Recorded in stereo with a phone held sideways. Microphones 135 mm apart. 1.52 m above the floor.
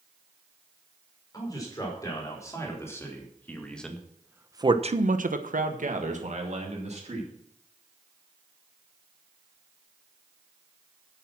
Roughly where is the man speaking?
Left.